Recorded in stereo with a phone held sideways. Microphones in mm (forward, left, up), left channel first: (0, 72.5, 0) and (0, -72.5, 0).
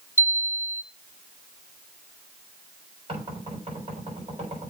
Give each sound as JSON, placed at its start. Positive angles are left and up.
{"t": 0.2, "sound": "a chime", "side_deg": 15, "distance_m": 1.4}
{"t": 3.1, "sound": "knocking", "side_deg": -45, "distance_m": 6.5}